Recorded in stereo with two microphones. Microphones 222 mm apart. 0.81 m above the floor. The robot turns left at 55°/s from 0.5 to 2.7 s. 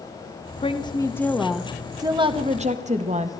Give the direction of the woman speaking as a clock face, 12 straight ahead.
10 o'clock.